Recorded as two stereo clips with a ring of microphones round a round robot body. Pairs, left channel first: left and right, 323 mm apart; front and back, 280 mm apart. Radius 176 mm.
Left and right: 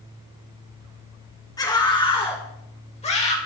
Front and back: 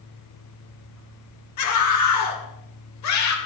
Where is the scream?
10° left, 3 m; by 3.4 s 20° left, 4.5 m.